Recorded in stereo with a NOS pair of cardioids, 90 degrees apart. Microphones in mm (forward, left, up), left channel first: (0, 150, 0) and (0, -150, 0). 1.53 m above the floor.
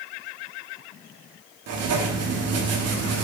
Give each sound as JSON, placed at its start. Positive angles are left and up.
{"t": 1.7, "sound": "writing", "azimuth_deg": -55, "distance_m": 0.7}